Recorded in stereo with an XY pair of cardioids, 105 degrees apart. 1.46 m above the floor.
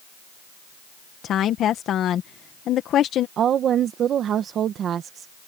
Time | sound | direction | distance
1.2 | a woman speaking | 65° left | ?
3.4 | a woman speaking | 60° right | ?